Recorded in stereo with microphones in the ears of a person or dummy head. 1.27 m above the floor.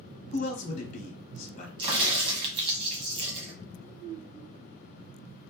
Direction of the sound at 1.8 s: 25° right (ahead or behind).